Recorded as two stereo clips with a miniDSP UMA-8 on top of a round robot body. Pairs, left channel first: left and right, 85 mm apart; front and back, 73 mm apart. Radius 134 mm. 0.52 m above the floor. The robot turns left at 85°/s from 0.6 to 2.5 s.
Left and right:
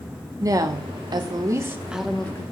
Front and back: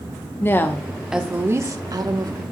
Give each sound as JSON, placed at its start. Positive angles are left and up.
{"t": 0.4, "sound": "a woman speaking", "azimuth_deg": -55, "distance_m": 1.2}